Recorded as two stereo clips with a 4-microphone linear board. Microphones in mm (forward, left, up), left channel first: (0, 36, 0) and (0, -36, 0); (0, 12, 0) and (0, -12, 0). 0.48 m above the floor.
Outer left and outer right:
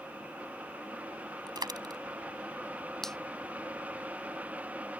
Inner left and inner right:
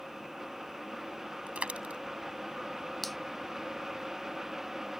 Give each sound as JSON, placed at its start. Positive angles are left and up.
{"t": 1.5, "sound": "a dropped coin", "side_deg": -85}
{"t": 3.0, "sound": "a finger snap", "side_deg": 5}